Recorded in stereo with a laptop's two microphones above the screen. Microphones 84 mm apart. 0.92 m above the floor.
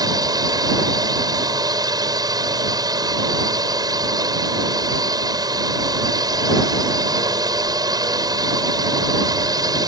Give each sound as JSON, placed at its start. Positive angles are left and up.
{"t": 0.0, "sound": "a drone", "side_deg": -50}